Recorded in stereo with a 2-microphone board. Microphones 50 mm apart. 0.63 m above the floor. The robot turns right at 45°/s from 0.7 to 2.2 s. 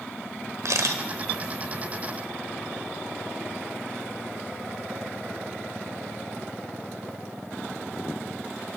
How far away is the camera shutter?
About 1.1 m.